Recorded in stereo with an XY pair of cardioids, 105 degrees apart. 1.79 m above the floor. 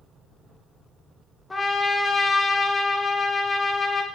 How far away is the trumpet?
About 0.6 m.